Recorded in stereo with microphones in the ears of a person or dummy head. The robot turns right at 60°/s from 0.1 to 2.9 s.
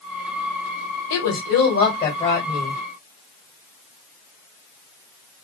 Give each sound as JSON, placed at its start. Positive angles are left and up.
{"t": 1.1, "sound": "a woman speaking", "azimuth_deg": 80, "distance_m": 1.7}